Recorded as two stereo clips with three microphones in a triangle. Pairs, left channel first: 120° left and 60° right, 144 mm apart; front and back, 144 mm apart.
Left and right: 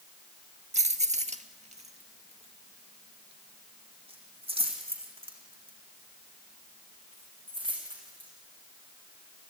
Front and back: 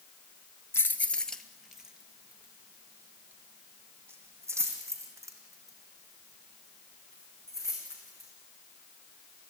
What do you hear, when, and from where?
0.7 s keys jangling: 70° right, 1.2 m; by 8.3 s 115° right, 7 m